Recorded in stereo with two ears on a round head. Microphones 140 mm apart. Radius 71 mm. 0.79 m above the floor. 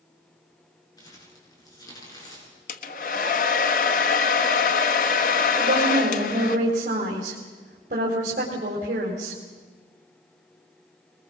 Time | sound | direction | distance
1.0 | crumpling | 25° left (ahead or behind) | 7.5 m
2.7 | a hair dryer | 55° left (ahead or behind) | 1.3 m
5.6 | a woman speaking | 55° right (ahead or behind) | 3.5 m